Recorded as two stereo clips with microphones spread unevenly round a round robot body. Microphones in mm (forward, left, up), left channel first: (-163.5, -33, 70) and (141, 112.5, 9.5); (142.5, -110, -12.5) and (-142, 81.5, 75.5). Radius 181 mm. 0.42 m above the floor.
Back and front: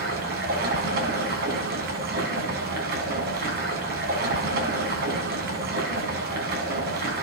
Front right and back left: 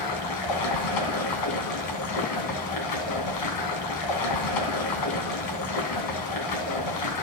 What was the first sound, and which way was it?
Running water, 35° right.